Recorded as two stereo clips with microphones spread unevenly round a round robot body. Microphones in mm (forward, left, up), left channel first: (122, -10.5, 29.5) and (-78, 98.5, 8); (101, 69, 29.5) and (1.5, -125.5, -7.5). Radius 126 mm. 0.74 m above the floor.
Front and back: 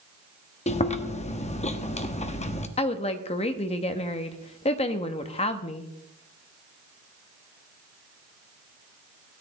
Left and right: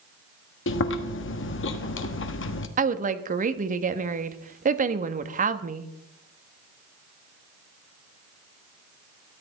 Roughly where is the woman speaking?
Right.